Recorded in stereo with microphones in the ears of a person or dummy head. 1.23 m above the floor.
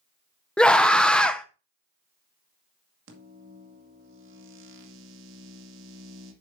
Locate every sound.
0.6 s a scream: 5° left (ahead or behind), 0.6 m
3.1 s a microwave: 75° right (ahead or behind), 2 m